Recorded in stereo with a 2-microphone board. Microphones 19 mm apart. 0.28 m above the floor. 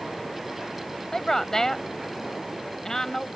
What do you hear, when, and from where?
1.1 s a woman speaking: 25° left (ahead or behind)